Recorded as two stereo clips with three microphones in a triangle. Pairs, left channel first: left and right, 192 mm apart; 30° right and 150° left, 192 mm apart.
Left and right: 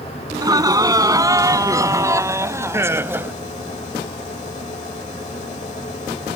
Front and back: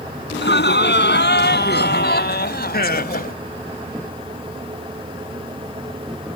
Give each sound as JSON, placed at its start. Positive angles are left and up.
{"t": 0.3, "sound": "laughter", "azimuth_deg": -20}